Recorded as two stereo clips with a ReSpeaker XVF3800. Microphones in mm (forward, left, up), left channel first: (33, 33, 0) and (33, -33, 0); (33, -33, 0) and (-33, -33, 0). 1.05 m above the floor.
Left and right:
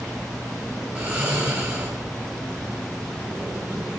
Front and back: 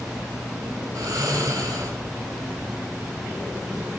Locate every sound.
0.9 s snoring: 150° right, 4 m